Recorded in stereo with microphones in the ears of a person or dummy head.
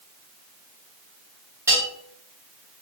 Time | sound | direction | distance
1.7 | a bell | 15° right (ahead or behind) | 1.2 m